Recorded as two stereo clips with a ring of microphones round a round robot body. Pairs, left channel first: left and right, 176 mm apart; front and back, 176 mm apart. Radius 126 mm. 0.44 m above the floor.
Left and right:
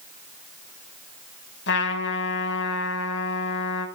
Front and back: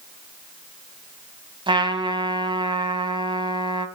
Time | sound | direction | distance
1.7 | a trumpet | 120° left | 3 m